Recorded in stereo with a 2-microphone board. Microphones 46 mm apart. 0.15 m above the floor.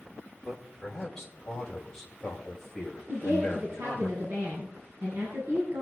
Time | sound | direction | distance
0.4 | a man speaking | 10° left (ahead or behind) | 4.5 m
3.1 | a woman speaking | 60° right (ahead or behind) | 7 m